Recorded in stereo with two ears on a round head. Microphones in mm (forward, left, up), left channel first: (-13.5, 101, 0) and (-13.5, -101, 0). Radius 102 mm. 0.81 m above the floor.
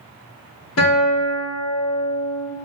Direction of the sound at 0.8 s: 75° left (ahead or behind).